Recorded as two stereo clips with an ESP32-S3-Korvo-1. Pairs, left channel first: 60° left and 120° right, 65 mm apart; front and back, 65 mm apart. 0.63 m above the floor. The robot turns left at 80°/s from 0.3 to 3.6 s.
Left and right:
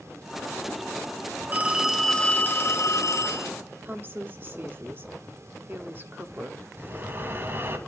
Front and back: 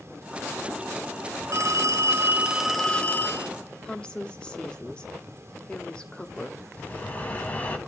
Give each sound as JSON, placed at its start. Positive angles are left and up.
{"t": 1.5, "sound": "a phone ringing", "azimuth_deg": -175, "distance_m": 1.0}
{"t": 3.8, "sound": "a woman speaking", "azimuth_deg": -70, "distance_m": 1.2}
{"t": 6.8, "sound": "breathing", "azimuth_deg": -65, "distance_m": 1.6}